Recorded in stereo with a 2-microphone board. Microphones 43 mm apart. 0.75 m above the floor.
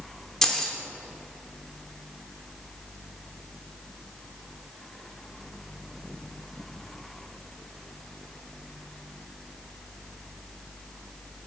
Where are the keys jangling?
10° left (ahead or behind), 1.1 m.